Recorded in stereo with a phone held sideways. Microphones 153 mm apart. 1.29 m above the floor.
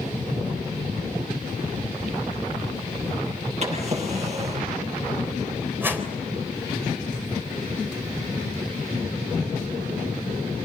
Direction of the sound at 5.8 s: 15° right (ahead or behind).